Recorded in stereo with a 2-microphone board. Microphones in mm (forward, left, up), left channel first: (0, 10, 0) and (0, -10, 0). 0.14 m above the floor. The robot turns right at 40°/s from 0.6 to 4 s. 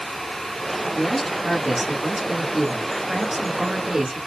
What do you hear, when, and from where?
0.9 s a man speaking: 165° left, 1.2 m; by 4.2 s 75° right, 1.2 m